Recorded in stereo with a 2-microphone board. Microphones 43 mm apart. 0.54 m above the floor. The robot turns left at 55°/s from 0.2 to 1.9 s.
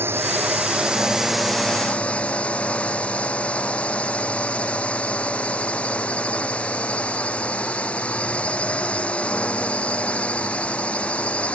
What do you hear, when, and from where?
0.0 s a drone: 120° right; by 11.6 s 150° left